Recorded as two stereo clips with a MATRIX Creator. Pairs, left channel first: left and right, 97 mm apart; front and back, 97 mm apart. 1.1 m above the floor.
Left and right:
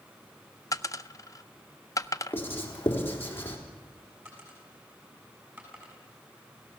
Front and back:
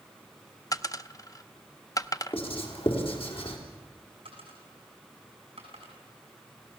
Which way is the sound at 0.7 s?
45° left.